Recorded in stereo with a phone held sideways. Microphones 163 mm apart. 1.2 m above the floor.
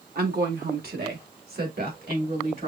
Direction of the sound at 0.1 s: 75° right (ahead or behind).